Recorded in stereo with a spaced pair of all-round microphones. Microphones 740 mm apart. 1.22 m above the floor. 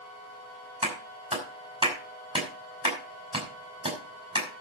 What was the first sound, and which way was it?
A clap, 5° right (ahead or behind).